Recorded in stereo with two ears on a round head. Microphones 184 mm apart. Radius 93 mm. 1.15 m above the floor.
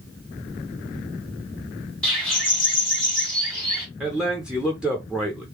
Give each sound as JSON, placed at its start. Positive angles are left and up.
{"t": 2.0, "sound": "a bird", "side_deg": 5, "distance_m": 1.9}
{"t": 4.0, "sound": "a man speaking", "side_deg": -5, "distance_m": 0.7}